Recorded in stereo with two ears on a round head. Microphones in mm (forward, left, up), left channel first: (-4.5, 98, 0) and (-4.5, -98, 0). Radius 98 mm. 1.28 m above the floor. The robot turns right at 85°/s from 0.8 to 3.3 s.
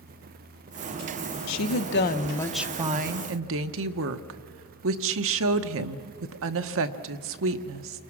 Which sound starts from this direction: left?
A woman speaking, at 1.5 s.